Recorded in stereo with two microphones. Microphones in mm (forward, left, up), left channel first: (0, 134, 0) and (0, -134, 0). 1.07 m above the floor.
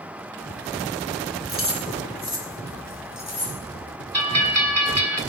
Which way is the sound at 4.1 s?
70° right (ahead or behind).